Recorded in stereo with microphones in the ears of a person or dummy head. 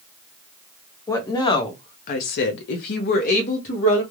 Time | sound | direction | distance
1.1 | a woman speaking | 15° left (ahead or behind) | 0.8 m